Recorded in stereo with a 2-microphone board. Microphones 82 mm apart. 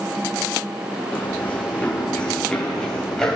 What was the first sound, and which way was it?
Running footsteps, 15° left (ahead or behind).